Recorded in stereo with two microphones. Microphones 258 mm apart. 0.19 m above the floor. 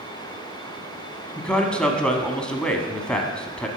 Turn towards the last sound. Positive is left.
turn(degrees=5)  # may be behind; listen again after turning